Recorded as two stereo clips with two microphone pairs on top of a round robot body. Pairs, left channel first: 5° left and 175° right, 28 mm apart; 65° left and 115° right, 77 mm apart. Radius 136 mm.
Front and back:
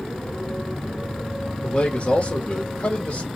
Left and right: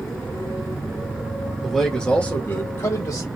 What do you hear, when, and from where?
1.6 s a man speaking: 25° right, 1.4 m; by 3.3 s 30° left, 1.7 m